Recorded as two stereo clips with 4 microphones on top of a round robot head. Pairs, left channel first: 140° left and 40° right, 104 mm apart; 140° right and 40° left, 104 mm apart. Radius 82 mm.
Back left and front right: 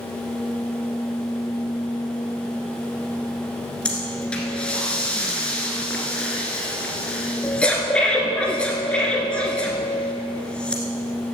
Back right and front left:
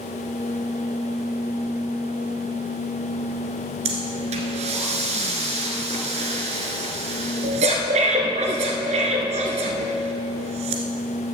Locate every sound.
3.9 s breathing: 60° left, 1.6 m